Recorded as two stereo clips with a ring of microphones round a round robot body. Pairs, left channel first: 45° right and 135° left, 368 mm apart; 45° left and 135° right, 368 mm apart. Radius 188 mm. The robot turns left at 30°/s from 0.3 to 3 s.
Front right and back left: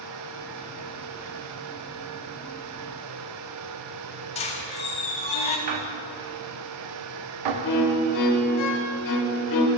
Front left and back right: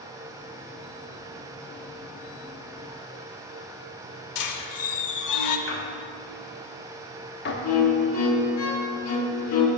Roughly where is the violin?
Ahead.